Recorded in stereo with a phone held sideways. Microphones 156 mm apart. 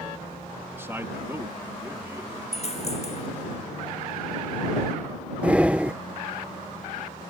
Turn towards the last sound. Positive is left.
turn(degrees=-10)  # may be behind; listen again after turning